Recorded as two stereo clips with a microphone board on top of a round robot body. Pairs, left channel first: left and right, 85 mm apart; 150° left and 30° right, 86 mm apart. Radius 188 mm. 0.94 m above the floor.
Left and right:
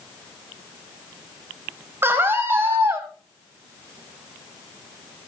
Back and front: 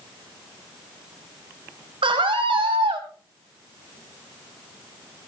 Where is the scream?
25° right, 4.5 m; by 3.1 s 30° right, 5.5 m.